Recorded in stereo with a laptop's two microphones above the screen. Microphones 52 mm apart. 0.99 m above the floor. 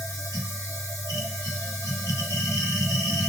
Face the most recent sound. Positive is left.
turn(degrees=70)  # may be behind; listen again after turning